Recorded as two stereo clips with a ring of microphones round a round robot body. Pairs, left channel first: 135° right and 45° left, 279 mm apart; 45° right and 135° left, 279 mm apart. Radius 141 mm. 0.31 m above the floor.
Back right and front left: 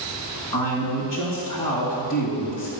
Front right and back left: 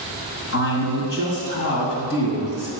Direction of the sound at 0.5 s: 80° right.